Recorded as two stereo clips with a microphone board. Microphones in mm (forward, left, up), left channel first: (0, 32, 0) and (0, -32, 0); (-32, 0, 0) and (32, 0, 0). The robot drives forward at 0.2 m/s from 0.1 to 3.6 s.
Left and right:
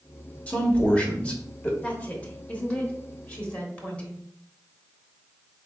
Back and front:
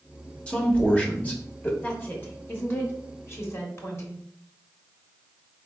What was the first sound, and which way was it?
A man speaking, 130° left.